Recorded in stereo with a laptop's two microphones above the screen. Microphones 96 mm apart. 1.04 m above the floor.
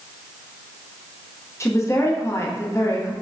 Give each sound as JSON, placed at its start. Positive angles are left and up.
{"t": 1.6, "sound": "a woman speaking", "side_deg": 30, "distance_m": 0.9}